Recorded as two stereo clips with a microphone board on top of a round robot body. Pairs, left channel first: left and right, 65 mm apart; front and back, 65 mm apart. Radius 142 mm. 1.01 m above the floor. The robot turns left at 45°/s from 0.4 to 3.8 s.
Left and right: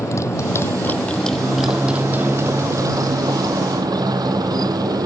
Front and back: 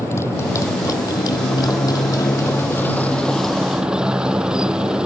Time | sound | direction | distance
0.0 | a motorcycle | 50° left | ?